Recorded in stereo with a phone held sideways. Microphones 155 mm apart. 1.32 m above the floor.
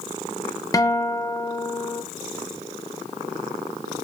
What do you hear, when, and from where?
0.7 s a guitar: 25° left (ahead or behind), 0.9 m